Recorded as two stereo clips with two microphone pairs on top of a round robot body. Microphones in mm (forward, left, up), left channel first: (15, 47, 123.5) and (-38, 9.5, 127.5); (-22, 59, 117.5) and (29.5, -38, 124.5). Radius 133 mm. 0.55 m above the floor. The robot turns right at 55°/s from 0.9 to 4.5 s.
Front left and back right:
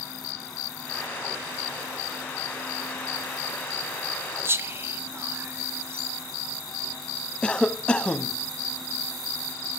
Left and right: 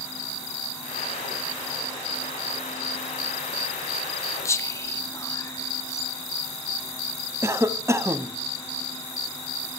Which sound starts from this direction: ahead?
A cough, at 7.4 s.